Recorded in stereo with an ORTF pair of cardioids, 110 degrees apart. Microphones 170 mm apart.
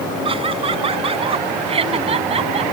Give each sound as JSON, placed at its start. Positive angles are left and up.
{"t": 0.2, "sound": "laughter", "azimuth_deg": -35}